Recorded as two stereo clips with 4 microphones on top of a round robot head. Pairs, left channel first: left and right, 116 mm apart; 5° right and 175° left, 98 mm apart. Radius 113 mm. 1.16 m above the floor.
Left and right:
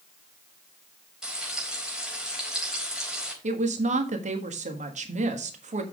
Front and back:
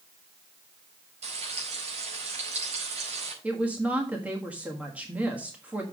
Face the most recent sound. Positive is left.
turn(degrees=-105)